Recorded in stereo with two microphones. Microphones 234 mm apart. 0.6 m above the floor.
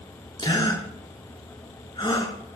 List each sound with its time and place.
0.4 s a gasp: 20° left (ahead or behind), 3.5 m